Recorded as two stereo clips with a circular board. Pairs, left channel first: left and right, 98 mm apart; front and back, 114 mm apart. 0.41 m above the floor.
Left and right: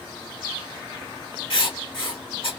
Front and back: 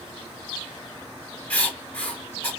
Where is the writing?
75° left, 1.9 m.